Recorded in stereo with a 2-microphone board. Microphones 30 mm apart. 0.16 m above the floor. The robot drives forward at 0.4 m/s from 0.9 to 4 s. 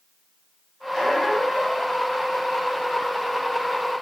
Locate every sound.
0.9 s a squeak: 10° right (ahead or behind), 1.8 m; by 1.9 s 5° right (ahead or behind), 2 m